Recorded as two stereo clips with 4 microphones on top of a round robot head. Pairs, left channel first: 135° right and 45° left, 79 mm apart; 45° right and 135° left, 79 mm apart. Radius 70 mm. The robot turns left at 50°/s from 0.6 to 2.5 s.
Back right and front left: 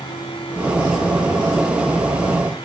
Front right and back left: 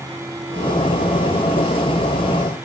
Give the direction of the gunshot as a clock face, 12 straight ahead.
No gunshot in this recording.